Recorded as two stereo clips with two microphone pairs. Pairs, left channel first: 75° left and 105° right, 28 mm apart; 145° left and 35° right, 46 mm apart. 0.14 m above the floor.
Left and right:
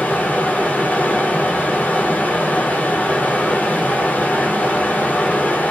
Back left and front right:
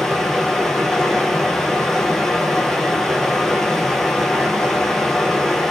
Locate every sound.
0.0 s running water: 65° left, 0.8 m